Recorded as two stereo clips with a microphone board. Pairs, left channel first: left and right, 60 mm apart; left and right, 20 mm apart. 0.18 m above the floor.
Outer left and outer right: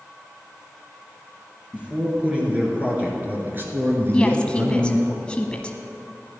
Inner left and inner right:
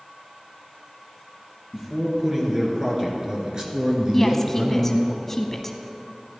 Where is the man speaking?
20° right (ahead or behind), 3 m; by 5.1 s 50° right (ahead or behind), 2.5 m.